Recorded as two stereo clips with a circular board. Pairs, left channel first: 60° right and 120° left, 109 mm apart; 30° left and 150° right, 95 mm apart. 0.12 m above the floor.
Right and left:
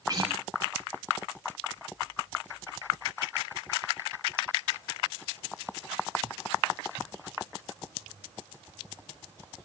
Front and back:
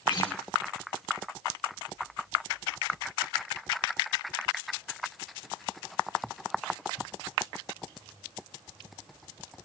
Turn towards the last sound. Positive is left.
turn(degrees=70)